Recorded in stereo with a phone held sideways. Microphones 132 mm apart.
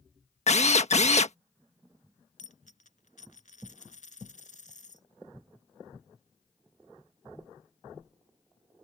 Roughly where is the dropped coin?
Left.